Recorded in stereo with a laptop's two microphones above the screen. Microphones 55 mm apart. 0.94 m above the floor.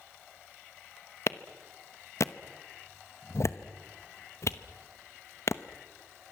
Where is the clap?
60° left (ahead or behind), 0.9 m.